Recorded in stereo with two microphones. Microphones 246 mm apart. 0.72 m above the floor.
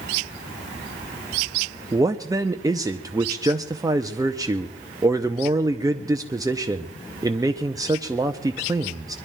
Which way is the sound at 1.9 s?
15° right (ahead or behind).